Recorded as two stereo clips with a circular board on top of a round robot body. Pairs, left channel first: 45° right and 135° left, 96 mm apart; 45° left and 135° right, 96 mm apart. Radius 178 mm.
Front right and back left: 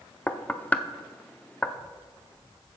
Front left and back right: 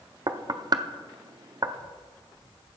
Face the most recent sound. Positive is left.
turn(degrees=-115)